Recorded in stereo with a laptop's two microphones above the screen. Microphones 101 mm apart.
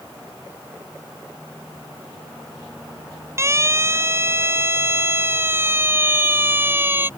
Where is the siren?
30° right (ahead or behind); by 7.1 s 20° right (ahead or behind).